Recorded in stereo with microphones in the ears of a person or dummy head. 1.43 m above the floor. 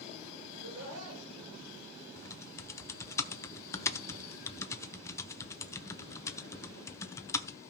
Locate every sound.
0.5 s laughter: 80° right, 8 m
2.2 s typing on a keyboard: 15° left (ahead or behind), 0.6 m